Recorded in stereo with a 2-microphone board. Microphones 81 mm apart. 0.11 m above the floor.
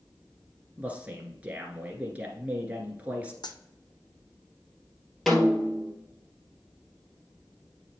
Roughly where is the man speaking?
Centre.